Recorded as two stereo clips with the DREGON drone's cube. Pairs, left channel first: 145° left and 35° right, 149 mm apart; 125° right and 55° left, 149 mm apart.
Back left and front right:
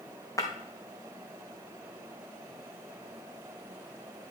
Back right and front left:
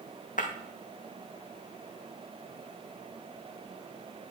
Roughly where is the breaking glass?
Behind right.